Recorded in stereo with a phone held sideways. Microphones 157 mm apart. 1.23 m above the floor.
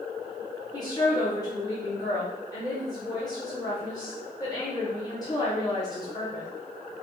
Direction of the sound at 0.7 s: 25° left (ahead or behind).